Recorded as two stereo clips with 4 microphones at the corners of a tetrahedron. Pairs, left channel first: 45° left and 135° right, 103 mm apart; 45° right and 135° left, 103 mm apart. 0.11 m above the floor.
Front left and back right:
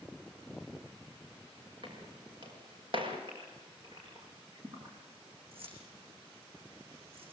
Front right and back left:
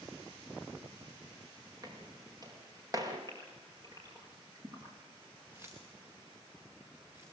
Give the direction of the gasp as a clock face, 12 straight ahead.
6 o'clock.